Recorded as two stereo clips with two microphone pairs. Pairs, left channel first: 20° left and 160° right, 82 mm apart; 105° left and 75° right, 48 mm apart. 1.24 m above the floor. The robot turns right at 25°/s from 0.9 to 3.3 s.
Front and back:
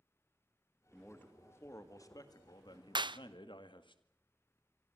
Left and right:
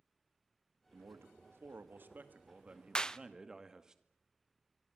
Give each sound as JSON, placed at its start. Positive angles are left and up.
{"t": 0.9, "sound": "a man speaking", "azimuth_deg": -55, "distance_m": 2.0}
{"t": 3.0, "sound": "a clap", "azimuth_deg": 175, "distance_m": 0.5}